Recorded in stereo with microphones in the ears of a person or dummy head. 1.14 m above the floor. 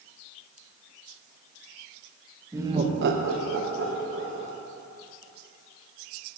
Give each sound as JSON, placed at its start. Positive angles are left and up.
{"t": 2.5, "sound": "laughter", "side_deg": -10, "distance_m": 0.9}